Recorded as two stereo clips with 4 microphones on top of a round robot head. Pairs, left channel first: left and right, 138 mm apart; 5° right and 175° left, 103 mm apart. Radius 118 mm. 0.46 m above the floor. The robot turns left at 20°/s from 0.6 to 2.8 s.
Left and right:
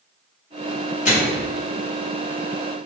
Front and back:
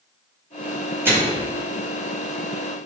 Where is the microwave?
110° left, 2 m; by 1.5 s 100° left, 2 m.